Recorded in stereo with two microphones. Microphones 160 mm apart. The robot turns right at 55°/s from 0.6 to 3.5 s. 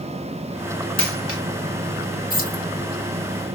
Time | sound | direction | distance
1.0 | a dropped coin | 5° left (ahead or behind) | 1.8 m
2.3 | keys jangling | 65° left (ahead or behind) | 1.7 m